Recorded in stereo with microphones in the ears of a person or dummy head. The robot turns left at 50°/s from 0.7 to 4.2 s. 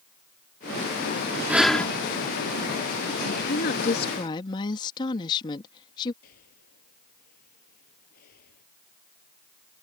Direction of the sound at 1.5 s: 10° right (ahead or behind).